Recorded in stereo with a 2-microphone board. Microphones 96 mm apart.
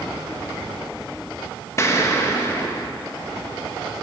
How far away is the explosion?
About 1.1 m.